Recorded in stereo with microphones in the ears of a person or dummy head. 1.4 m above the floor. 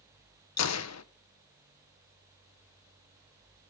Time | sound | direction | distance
0.6 | a gunshot | 80° left | 1.1 m